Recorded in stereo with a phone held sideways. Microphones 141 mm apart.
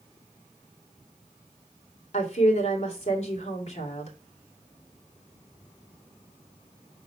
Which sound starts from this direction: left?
A woman speaking, at 2.1 s.